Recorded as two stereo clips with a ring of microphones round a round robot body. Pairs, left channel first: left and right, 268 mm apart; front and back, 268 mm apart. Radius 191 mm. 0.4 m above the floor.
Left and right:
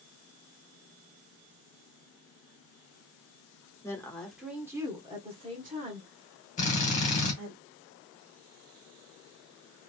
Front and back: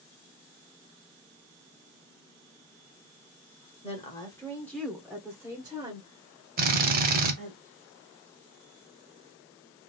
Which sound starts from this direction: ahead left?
A woman speaking, at 3.8 s.